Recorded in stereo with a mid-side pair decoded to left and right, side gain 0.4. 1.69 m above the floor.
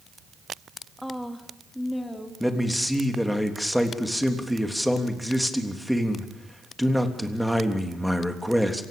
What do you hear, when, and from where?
1.0 s a woman speaking: 5° left, 2.5 m; by 2.3 s 10° left, 4 m
2.4 s a man speaking: 5° left, 3.5 m